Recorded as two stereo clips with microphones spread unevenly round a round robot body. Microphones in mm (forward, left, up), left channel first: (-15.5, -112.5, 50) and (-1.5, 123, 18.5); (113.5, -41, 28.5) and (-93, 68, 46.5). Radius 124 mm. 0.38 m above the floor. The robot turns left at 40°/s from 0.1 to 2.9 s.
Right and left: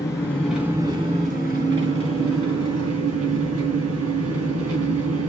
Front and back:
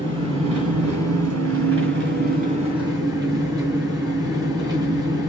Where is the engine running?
170° right, 3.5 m; by 5.3 s 80° left, 3.5 m.